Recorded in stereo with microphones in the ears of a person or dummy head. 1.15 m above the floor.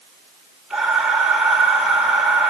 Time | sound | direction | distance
0.7 | breathing | centre (ahead or behind) | 2 m